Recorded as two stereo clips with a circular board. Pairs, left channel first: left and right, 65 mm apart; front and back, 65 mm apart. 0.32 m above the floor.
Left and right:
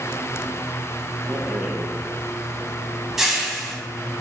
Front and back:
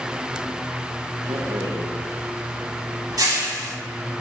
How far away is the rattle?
About 0.5 m.